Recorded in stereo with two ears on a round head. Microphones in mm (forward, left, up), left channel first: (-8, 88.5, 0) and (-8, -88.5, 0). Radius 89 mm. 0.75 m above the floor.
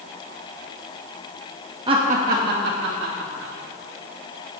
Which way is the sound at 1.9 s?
25° right (ahead or behind).